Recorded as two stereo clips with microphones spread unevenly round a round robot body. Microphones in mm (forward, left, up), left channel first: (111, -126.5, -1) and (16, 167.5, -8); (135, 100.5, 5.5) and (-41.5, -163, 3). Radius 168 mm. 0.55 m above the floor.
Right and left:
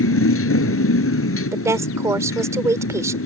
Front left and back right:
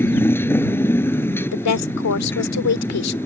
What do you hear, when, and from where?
0.0 s a motorcycle: 25° right
1.5 s a woman speaking: 30° left